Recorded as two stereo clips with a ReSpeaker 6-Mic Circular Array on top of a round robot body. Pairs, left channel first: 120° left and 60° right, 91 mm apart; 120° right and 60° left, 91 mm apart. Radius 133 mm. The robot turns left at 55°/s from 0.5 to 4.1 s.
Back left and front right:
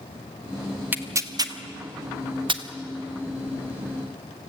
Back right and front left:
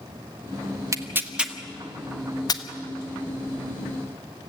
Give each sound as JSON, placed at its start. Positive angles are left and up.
{"t": 0.9, "sound": "tearing paper", "azimuth_deg": 10, "distance_m": 1.4}